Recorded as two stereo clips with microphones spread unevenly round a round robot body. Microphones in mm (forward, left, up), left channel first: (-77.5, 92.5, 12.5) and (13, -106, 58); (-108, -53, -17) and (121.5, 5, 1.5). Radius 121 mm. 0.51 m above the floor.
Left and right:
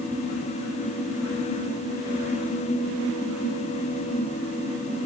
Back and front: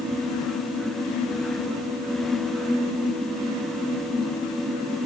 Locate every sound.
Only background noise.